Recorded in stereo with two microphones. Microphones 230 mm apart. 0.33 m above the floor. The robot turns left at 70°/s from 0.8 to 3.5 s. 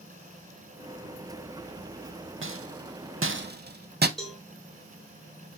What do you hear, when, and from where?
2.4 s a rattle: 60° right (ahead or behind), 0.5 m; by 4.1 s 45° right (ahead or behind), 0.5 m
4.2 s a cowbell: centre (ahead or behind), 1.2 m